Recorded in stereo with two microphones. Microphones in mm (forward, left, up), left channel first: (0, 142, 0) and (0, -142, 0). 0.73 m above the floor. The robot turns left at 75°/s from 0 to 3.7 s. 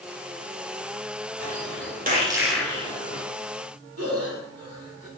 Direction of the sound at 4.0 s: 65° right (ahead or behind).